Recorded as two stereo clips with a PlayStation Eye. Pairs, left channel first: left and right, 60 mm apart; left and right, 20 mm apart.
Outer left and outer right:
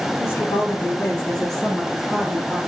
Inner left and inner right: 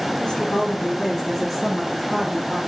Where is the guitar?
No guitar in this recording.